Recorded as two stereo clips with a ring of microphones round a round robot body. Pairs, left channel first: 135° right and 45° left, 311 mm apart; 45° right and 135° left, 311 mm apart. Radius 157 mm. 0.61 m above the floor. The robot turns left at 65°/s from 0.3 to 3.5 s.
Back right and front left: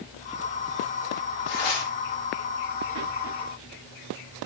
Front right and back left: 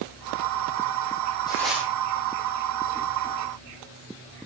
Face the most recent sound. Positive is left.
turn(degrees=105)